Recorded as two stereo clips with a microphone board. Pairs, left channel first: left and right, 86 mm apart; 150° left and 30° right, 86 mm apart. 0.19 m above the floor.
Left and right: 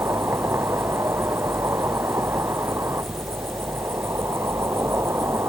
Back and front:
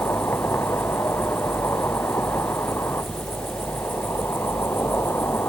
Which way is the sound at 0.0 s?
150° right.